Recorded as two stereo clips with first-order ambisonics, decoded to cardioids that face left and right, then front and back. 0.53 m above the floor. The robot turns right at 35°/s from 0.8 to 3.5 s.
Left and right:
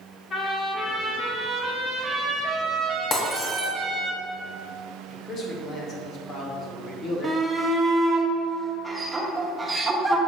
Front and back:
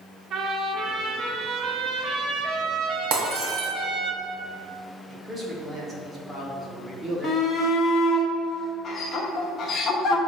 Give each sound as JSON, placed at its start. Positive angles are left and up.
{"t": 0.3, "sound": "a trumpet", "azimuth_deg": 140, "distance_m": 1.5}
{"t": 3.1, "sound": "breaking glass", "azimuth_deg": 155, "distance_m": 1.5}
{"t": 5.1, "sound": "a man speaking", "azimuth_deg": 115, "distance_m": 1.2}
{"t": 7.2, "sound": "a shout", "azimuth_deg": -25, "distance_m": 1.0}